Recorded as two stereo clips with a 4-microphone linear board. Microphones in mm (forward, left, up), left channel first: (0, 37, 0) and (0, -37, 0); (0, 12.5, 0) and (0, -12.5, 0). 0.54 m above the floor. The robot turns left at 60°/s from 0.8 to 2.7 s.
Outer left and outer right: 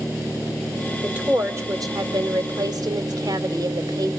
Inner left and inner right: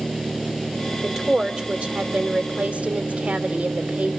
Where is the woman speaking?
10° right, 2.0 m; by 4.2 s 110° right, 2.0 m.